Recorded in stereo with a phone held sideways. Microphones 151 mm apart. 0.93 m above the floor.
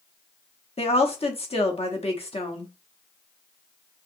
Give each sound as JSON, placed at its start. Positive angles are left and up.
{"t": 0.8, "sound": "a woman speaking", "side_deg": 40, "distance_m": 1.0}